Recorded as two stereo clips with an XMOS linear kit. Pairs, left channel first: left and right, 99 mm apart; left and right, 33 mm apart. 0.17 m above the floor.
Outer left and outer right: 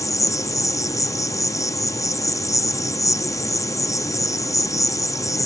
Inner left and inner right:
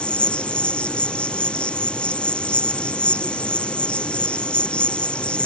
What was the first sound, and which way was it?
An insect, 35° left (ahead or behind).